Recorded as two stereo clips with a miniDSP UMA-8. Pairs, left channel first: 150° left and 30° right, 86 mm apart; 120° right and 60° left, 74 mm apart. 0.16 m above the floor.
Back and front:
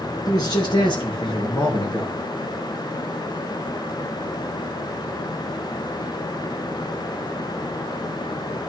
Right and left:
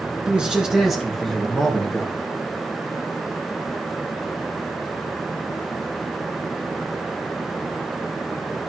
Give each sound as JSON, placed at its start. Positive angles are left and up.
{"t": 0.3, "sound": "a man speaking", "azimuth_deg": 130, "distance_m": 2.5}